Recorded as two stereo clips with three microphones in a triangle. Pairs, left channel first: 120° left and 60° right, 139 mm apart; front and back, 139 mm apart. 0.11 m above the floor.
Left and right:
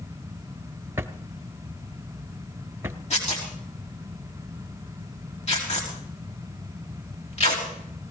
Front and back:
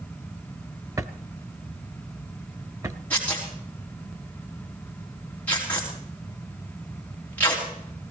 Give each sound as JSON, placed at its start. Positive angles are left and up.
{"t": 1.0, "sound": "a drawer", "azimuth_deg": -125, "distance_m": 0.7}
{"t": 3.1, "sound": "tearing paper", "azimuth_deg": 80, "distance_m": 5.0}